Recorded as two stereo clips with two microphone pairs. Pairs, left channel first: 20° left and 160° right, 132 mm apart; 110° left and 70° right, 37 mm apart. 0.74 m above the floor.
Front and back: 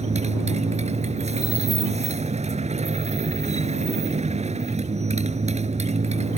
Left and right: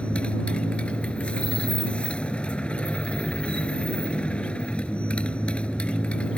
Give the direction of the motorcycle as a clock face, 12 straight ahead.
6 o'clock.